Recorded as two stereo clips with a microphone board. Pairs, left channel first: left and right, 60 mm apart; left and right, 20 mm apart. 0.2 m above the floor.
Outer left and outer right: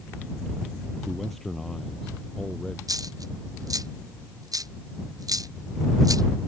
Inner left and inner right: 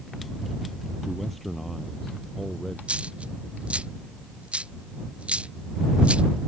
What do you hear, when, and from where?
1.0 s a man speaking: centre (ahead or behind); by 2.8 s 10° left (ahead or behind)
2.9 s a dropped coin: 90° right